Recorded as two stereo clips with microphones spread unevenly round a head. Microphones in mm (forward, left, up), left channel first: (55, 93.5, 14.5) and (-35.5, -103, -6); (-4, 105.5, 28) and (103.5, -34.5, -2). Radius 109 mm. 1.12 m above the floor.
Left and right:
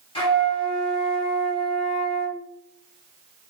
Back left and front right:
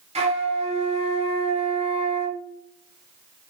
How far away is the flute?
About 1.0 m.